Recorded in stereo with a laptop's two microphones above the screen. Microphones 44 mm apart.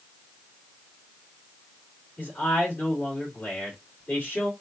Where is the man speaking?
40° left (ahead or behind), 2.5 m.